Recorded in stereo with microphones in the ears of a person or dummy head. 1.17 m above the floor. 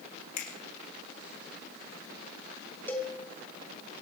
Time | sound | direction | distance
0.4 | a finger snap | 50° left (ahead or behind) | 2.5 m
2.9 | a cowbell | 10° left (ahead or behind) | 1.1 m